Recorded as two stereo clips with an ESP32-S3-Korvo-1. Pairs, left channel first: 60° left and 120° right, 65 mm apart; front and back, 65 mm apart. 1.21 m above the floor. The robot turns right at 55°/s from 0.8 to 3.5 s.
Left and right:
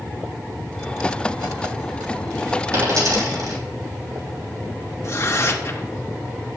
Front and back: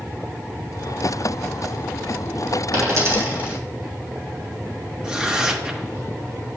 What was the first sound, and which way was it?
A dropped coin, 155° right.